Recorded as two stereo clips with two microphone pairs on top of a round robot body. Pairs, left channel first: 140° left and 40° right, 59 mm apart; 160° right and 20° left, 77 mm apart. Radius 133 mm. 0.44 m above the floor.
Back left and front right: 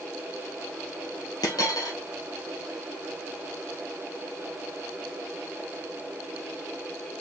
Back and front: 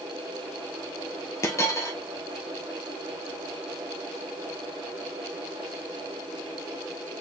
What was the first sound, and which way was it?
A dropped coin, 155° left.